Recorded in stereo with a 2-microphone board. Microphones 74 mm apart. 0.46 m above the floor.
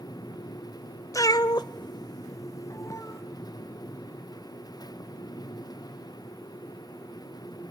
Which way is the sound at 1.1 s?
45° left (ahead or behind).